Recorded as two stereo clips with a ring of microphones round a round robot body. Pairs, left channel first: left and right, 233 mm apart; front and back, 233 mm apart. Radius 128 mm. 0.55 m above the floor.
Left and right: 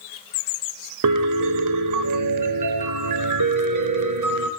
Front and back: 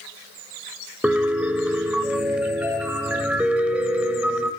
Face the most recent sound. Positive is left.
turn(degrees=-95)